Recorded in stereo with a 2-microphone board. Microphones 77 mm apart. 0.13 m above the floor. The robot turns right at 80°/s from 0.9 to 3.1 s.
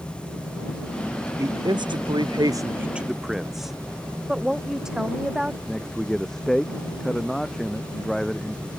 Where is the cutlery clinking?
No cutlery clinking in this recording.